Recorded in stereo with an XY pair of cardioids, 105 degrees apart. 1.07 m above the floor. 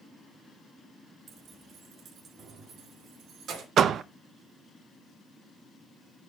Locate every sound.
1.3 s keys jangling: 50° right, 1.4 m; by 3.7 s 65° right, 2.5 m
3.8 s a door slam: 60° right, 0.6 m